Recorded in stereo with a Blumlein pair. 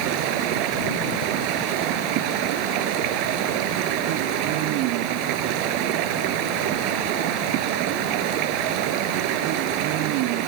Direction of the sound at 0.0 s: 45° right.